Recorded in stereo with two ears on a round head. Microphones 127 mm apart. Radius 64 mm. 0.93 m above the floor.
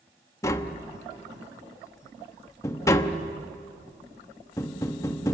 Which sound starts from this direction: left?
Tapping, at 0.4 s.